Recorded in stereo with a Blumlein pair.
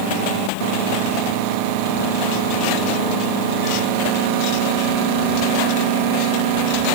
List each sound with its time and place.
Only background noise.